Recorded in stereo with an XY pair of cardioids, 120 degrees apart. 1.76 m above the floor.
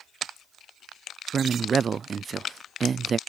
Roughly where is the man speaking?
Ahead right.